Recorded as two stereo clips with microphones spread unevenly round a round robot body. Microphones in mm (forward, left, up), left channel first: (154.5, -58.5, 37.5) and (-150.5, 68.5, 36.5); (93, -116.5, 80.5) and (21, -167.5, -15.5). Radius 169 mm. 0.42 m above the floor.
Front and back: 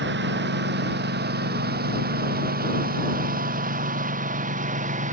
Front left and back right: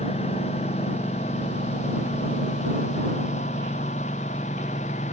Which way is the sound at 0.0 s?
100° left.